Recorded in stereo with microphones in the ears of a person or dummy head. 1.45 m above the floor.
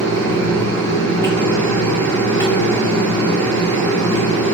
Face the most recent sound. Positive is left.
turn(degrees=15)  # may be behind; listen again after turning